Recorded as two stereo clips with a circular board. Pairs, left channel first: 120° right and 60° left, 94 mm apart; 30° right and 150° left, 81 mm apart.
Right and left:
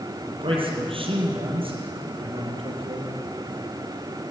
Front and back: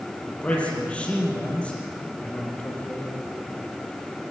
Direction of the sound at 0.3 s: 45° left.